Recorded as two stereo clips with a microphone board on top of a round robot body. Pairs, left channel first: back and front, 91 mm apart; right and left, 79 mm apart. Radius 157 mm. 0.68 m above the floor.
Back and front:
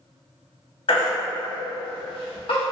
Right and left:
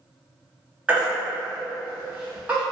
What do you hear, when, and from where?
0.9 s a baby crying: 165° left, 1.0 m